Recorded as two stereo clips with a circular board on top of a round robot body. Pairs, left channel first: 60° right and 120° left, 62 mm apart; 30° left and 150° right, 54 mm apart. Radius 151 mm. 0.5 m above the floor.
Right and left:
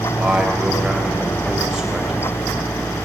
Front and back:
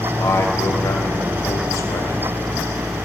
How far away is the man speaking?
About 2.5 m.